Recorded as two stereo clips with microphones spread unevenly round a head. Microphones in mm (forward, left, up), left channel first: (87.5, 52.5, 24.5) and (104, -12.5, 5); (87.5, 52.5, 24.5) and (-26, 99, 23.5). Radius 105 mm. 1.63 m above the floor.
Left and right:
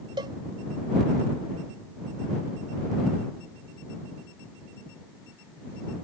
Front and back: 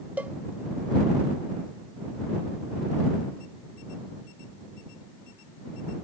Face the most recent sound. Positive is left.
turn(degrees=-120)